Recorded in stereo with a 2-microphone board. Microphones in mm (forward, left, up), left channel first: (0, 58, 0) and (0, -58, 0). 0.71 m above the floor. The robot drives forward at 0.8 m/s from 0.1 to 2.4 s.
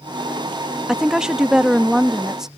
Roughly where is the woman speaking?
Centre.